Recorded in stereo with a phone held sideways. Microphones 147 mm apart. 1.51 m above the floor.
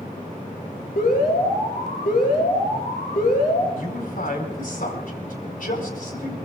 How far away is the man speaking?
About 4.5 m.